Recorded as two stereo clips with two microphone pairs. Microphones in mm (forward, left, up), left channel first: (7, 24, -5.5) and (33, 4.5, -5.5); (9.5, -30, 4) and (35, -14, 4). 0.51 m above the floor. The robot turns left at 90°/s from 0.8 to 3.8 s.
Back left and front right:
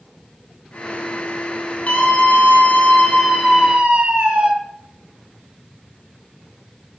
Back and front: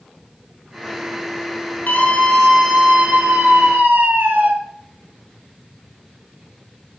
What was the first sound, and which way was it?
A scream, 175° right.